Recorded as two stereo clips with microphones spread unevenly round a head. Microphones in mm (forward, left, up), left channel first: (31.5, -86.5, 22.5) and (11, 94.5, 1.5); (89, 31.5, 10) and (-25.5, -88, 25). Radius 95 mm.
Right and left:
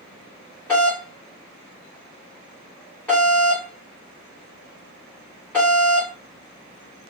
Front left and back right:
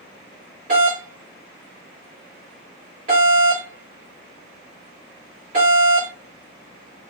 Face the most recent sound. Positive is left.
turn(degrees=-170)